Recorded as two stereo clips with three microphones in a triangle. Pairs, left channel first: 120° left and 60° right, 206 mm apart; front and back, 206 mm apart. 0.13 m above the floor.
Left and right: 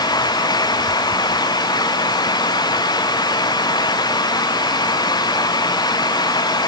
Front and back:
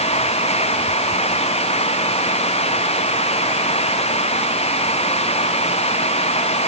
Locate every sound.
Only background noise.